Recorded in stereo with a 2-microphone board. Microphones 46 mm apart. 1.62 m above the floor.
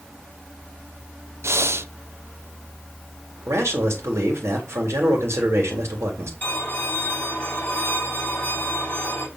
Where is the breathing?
70° right (ahead or behind), 0.7 m.